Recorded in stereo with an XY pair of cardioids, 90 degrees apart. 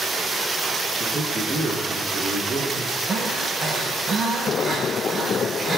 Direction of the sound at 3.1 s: 45° right.